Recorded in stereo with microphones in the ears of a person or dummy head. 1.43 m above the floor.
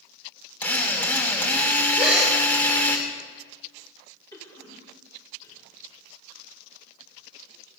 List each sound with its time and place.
0.6 s a drill: 10° left (ahead or behind), 2 m
2.0 s a gasp: centre (ahead or behind), 4 m
4.3 s a cough: 20° left (ahead or behind), 5.5 m